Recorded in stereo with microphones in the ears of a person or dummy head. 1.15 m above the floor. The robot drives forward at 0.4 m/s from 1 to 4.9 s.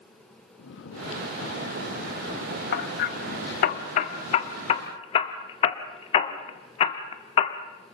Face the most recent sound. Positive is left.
turn(degrees=35)  # may be behind; listen again after turning